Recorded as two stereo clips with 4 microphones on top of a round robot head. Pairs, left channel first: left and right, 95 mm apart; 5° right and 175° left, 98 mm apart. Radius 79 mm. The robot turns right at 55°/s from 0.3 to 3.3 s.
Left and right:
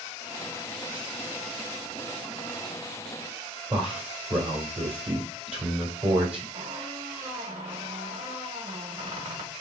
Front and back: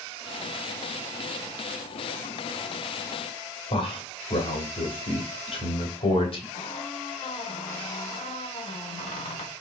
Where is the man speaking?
10° right, 2.5 m.